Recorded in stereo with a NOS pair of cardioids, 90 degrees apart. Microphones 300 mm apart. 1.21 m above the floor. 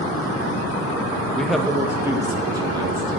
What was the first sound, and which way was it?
A man speaking, 5° left.